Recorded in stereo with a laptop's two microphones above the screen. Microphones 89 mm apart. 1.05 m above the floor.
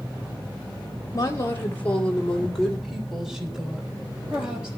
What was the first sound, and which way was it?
A woman speaking, 35° left (ahead or behind).